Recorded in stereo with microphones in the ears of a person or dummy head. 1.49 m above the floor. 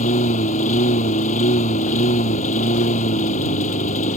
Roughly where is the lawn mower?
Left.